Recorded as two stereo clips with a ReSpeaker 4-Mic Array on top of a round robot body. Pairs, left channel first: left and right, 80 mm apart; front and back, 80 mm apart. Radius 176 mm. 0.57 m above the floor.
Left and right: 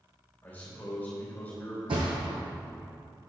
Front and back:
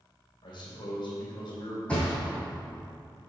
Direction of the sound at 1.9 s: 75° right.